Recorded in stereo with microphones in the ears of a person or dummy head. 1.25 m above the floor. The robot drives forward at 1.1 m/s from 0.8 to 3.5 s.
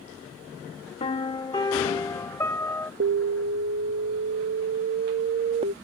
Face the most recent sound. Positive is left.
turn(degrees=-30)  # may be behind; listen again after turning